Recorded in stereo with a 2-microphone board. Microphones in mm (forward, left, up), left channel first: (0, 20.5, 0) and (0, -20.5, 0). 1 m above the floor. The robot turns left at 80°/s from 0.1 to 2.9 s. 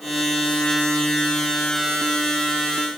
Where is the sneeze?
No sneeze in this recording.